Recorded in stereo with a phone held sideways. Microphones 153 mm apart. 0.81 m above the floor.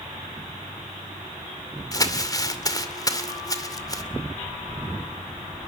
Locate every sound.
1.9 s crumpling: 25° left (ahead or behind), 2.5 m